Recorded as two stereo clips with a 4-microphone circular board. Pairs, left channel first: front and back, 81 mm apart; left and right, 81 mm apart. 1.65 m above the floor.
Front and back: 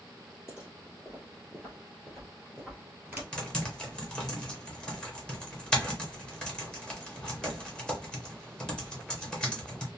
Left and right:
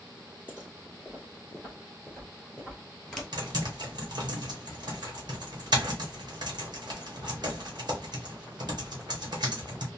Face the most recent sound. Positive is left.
turn(degrees=-80)